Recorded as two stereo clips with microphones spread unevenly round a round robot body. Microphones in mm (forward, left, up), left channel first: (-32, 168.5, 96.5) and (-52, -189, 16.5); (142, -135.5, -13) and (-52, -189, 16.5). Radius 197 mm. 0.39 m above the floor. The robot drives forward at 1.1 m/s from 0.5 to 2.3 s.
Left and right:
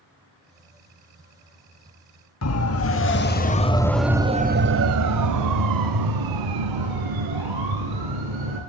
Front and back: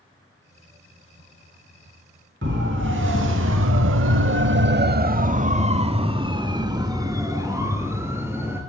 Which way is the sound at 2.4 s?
135° left.